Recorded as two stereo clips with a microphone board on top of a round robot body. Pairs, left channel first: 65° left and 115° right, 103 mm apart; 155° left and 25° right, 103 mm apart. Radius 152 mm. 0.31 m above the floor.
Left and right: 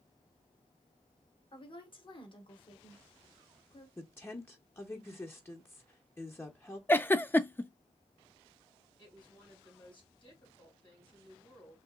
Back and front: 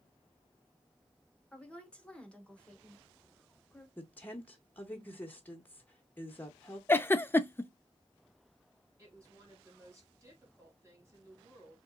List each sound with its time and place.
1.5 s a woman speaking: 80° left, 1.3 m
4.0 s a woman speaking: 105° left, 1.0 m
6.9 s a giggle: 115° left, 0.6 m
9.0 s a woman speaking: 35° left, 3 m